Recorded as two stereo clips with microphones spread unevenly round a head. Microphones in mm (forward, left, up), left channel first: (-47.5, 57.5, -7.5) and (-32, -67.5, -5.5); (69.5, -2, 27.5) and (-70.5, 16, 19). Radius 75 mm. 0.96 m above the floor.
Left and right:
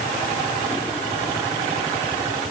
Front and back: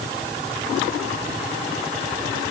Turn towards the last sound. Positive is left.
No sound to turn to.